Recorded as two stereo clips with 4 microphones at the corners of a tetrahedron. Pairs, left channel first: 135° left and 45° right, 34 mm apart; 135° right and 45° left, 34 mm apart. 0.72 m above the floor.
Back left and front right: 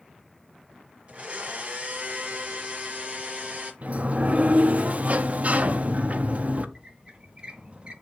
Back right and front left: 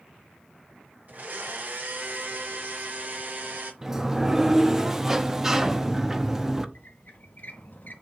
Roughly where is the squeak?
Right.